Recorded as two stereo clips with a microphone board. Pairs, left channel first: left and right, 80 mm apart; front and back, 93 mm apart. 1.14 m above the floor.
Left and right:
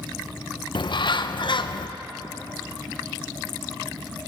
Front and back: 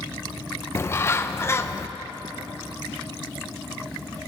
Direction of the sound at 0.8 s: 65° left.